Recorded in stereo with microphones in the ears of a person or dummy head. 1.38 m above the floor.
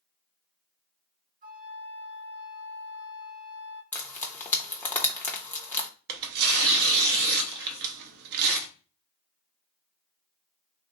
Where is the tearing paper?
55° right (ahead or behind), 0.5 m.